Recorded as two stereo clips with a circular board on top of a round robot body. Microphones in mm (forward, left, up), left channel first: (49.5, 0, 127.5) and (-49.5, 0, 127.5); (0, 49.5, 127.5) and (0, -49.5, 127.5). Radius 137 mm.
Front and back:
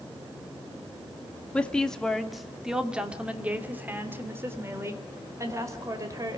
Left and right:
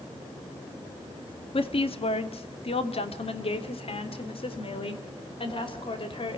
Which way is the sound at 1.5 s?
75° left.